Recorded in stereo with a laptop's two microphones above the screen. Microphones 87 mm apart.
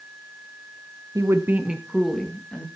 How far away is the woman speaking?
About 0.9 m.